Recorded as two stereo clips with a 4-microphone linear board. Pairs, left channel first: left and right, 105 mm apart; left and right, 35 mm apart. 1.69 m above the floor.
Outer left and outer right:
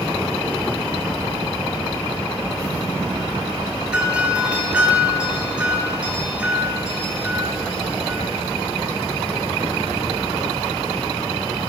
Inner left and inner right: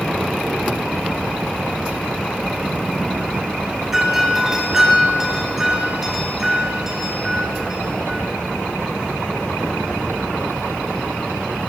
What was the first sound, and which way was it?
A doorbell, 10° right (ahead or behind).